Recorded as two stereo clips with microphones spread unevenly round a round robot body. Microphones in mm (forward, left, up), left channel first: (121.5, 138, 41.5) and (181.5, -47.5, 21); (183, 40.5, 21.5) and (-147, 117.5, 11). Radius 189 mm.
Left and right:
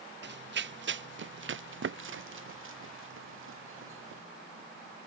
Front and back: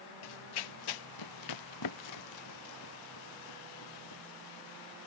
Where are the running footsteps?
45° right; by 4.2 s 70° right.